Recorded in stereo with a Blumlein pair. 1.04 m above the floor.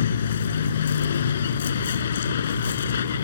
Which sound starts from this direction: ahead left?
A vehicle, at 0.0 s.